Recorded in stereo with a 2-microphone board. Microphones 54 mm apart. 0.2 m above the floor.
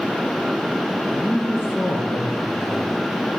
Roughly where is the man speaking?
Left.